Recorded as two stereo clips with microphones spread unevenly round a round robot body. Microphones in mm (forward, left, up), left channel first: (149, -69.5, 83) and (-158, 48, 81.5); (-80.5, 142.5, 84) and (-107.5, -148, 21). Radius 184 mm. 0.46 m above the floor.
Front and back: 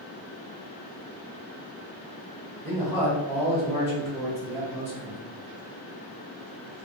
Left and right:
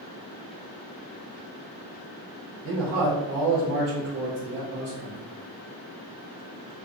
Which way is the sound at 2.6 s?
115° right.